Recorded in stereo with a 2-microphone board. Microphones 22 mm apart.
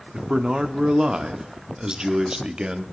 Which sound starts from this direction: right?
A man speaking, at 0.1 s.